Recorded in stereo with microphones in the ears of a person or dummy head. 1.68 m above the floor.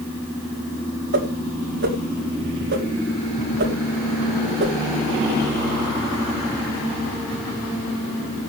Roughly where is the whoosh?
Right.